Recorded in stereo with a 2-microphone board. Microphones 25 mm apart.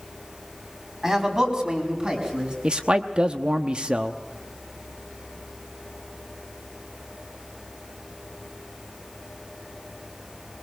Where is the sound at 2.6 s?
40° right (ahead or behind), 0.9 m.